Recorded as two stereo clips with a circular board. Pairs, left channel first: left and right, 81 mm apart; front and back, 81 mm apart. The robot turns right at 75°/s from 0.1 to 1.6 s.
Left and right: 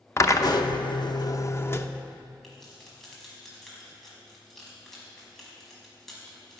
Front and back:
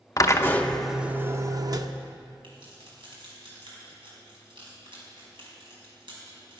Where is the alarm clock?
No alarm clock in this recording.